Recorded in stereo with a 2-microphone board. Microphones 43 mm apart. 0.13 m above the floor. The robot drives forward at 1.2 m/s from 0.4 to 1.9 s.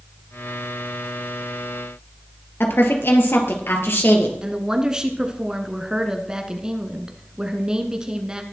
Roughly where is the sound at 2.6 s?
Left.